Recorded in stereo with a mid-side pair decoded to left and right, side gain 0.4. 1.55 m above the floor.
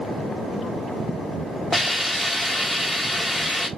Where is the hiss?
15° left, 1.2 m.